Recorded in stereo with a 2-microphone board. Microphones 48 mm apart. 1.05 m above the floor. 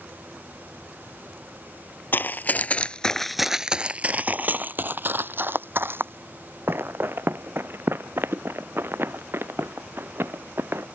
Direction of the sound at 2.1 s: 45° left (ahead or behind).